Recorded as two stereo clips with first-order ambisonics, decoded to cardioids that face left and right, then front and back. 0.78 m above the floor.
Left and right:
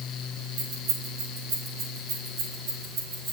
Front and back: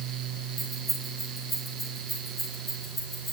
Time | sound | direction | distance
0.6 | keys jangling | 90° right | 2.5 m